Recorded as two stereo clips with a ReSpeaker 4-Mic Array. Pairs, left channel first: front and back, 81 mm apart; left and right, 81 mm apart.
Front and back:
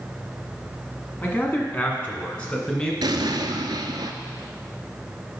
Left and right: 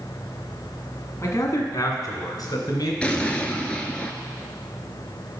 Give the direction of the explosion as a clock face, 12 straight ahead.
7 o'clock.